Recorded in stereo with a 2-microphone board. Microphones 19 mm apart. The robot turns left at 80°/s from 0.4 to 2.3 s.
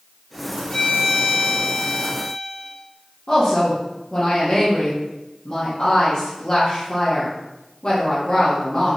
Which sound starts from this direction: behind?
A violin, at 0.7 s.